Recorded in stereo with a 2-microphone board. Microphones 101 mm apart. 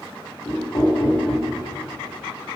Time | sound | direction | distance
0.5 | knocking | 40° left (ahead or behind) | 3 m